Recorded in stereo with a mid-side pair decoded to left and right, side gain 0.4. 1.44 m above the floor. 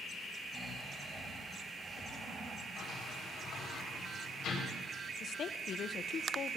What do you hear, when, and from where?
0.5 s snoring: 30° right, 8.5 m
2.8 s a sliding door: 70° left, 5.5 m
5.2 s a woman speaking: 60° left, 0.8 m